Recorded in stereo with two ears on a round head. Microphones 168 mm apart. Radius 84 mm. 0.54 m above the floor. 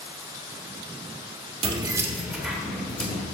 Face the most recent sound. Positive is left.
turn(degrees=10)  # may be behind; listen again after turning